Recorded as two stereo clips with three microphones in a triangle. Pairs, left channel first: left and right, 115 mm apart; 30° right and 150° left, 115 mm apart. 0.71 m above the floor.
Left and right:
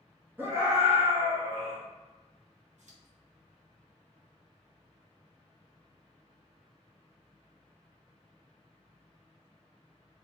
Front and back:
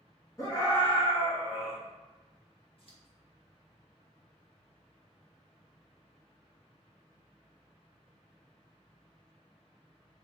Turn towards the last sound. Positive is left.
turn(degrees=-70)